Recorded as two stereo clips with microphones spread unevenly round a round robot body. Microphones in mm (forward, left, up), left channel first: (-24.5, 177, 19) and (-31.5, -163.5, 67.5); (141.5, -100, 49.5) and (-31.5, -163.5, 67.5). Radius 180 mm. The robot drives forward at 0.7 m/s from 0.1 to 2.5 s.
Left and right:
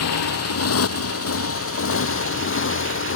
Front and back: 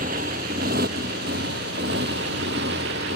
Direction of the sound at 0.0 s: 135° left.